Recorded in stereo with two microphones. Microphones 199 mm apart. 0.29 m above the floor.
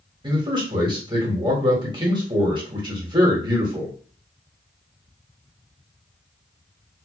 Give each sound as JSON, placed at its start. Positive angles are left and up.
{"t": 0.2, "sound": "a man speaking", "side_deg": -25, "distance_m": 1.3}